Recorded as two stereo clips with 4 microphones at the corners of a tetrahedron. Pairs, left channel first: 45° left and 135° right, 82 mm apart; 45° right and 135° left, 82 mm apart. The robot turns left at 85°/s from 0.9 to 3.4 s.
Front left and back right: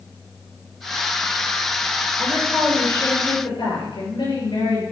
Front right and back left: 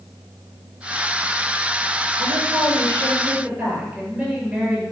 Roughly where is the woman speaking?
Behind.